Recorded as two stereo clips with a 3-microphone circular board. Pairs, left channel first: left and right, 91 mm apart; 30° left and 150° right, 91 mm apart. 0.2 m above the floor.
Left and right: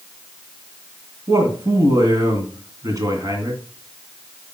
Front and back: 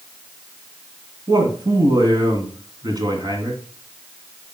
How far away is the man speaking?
About 2.5 m.